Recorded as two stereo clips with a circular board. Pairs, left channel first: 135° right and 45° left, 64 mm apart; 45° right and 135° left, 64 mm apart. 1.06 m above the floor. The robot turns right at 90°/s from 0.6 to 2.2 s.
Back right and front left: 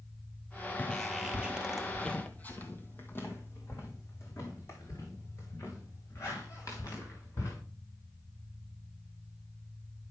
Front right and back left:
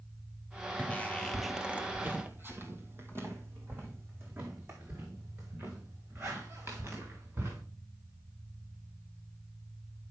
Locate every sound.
0.8 s footsteps: 95° right, 1.2 m; by 7.6 s 175° right, 6 m